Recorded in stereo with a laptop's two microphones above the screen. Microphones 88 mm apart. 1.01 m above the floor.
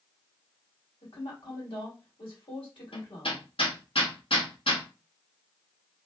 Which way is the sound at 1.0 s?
70° left (ahead or behind).